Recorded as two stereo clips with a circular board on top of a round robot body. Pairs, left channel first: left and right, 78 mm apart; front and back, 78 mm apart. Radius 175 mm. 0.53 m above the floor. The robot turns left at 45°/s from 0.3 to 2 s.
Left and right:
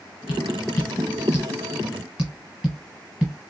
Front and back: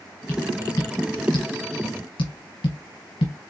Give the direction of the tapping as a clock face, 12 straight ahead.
10 o'clock.